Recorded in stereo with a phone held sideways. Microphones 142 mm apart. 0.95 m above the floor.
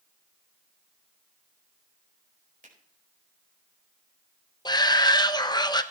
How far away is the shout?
About 0.8 m.